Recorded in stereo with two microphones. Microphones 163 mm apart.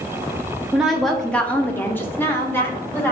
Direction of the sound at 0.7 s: 5° right (ahead or behind).